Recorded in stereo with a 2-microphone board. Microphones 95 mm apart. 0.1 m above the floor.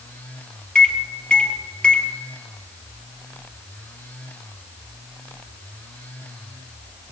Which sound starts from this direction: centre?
A microwave, at 0.8 s.